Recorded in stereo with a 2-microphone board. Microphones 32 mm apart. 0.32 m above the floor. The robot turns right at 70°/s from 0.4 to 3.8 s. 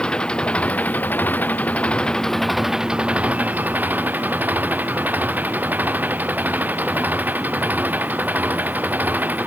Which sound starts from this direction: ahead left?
An engine running, at 0.0 s.